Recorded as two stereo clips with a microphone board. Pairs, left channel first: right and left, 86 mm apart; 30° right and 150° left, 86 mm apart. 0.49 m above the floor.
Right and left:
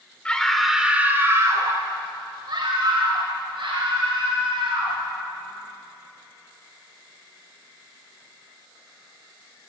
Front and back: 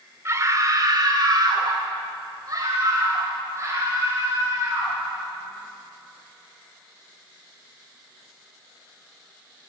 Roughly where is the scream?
Behind.